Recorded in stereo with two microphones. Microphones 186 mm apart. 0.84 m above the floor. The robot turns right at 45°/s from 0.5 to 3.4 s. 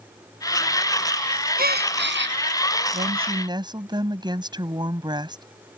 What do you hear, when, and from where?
1.6 s a gasp: 125° right; by 2.4 s 90° right
2.9 s a woman speaking: 45° right (ahead or behind); by 5.4 s 25° right (ahead or behind)